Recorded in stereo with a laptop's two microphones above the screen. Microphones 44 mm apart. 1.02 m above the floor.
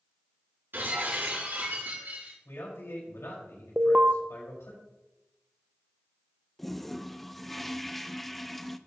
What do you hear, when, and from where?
0.7 s breaking glass: 55° right (ahead or behind), 5 m
2.5 s a man speaking: 85° left, 4.5 m
3.8 s an alarm: 30° right (ahead or behind), 0.6 m
6.6 s a toilet flushing: 5° left (ahead or behind), 0.6 m